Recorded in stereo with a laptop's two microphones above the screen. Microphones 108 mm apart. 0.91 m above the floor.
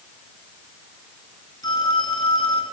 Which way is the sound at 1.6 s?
40° left (ahead or behind).